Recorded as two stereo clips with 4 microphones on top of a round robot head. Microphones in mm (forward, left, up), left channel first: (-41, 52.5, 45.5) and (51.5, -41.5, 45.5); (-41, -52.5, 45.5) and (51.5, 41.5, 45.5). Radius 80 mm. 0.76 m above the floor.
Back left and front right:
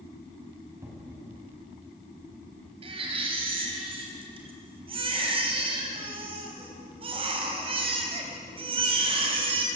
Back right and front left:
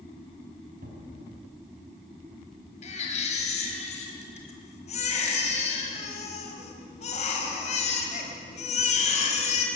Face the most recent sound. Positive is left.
turn(degrees=-95)